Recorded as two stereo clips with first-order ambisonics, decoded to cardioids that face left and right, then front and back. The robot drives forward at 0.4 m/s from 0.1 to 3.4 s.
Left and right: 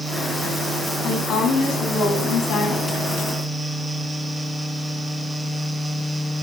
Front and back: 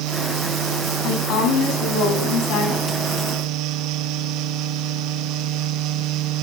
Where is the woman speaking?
35° left, 5 m; by 3.0 s 40° left, 4.5 m.